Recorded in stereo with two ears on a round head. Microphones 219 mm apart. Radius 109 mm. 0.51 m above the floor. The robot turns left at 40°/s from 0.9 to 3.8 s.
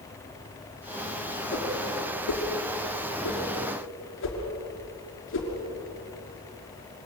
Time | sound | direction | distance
1.5 | a whoosh | 35° left (ahead or behind) | 5.5 m